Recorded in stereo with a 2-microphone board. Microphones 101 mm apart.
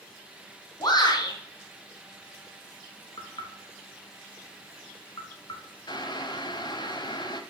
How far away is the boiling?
About 1.0 m.